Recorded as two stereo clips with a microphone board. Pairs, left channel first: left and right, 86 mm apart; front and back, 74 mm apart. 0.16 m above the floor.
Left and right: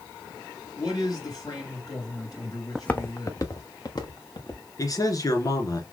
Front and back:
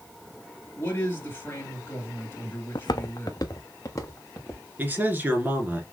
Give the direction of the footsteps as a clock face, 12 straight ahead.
12 o'clock.